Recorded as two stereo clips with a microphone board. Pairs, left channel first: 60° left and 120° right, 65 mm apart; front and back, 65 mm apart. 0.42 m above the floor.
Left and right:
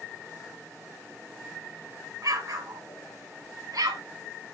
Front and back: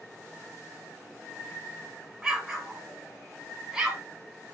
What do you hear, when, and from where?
2.2 s an explosion: 100° right, 1.5 m